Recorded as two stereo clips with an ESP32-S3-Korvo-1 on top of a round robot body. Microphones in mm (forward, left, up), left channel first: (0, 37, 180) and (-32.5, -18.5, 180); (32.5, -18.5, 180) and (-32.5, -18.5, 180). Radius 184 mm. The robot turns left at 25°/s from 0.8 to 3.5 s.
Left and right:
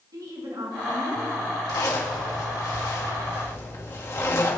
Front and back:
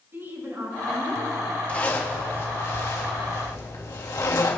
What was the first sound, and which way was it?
A woman speaking, 130° right.